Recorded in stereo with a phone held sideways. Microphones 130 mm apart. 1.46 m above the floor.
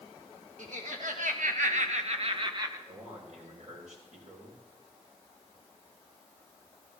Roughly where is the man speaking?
Right.